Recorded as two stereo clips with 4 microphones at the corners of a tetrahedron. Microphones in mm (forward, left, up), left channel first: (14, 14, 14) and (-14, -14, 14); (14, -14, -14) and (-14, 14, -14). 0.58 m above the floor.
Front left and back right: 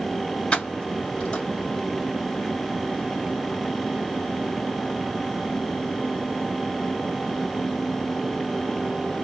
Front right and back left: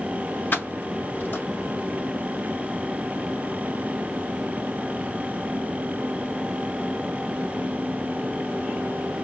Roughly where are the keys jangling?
Ahead.